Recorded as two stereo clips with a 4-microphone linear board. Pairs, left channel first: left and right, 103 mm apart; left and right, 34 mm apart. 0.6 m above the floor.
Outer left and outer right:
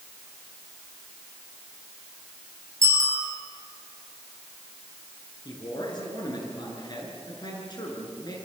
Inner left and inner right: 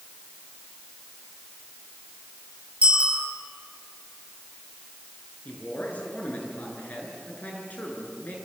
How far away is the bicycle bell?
About 9 m.